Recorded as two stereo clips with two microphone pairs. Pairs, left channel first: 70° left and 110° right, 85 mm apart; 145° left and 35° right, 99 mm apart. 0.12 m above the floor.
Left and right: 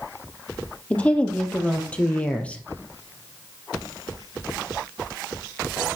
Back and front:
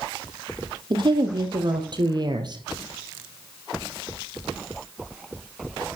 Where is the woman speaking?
Straight ahead, 4 m.